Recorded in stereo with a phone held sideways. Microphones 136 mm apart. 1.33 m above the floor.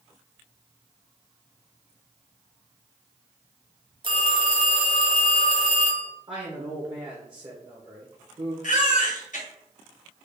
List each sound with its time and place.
4.0 s a phone ringing: 40° right (ahead or behind), 0.8 m
6.3 s a man speaking: 40° right (ahead or behind), 0.7 m
8.6 s a baby crying: 70° left (ahead or behind), 0.9 m